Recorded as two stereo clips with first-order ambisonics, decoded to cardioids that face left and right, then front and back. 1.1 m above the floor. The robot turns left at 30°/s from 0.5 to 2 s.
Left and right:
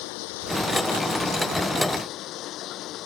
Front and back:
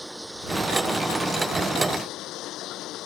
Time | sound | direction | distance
0.0 | running water | 90° left | ?